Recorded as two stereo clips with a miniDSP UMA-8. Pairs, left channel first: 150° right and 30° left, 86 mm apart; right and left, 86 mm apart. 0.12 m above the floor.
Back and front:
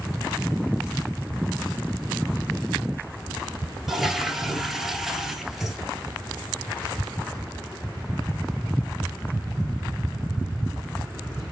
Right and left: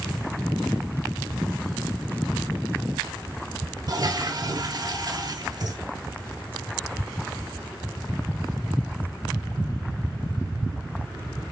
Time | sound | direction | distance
3.9 | a toilet flushing | 115° left | 1.2 m